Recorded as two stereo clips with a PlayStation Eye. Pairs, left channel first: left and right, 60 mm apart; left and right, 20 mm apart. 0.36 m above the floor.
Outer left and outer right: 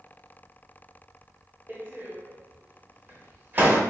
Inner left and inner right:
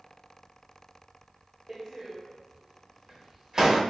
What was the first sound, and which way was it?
A door slam, 30° right (ahead or behind).